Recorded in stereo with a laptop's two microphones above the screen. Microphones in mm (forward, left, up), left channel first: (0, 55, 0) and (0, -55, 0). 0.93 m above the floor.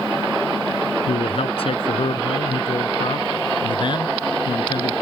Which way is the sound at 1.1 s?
60° left (ahead or behind).